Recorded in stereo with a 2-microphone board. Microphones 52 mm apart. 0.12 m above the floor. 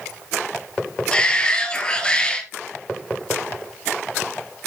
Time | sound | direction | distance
1.1 | a shout | 15° left (ahead or behind) | 2.5 m